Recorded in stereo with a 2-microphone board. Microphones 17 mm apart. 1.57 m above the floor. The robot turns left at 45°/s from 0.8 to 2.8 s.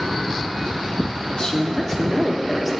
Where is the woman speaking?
50° left, 1.0 m; by 2.7 s 15° right, 1.0 m.